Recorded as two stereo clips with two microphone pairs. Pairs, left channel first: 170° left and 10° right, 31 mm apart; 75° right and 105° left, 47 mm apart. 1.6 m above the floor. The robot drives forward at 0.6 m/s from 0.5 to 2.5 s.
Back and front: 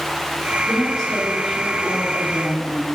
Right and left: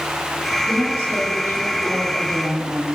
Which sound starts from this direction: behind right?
A woman speaking, at 0.7 s.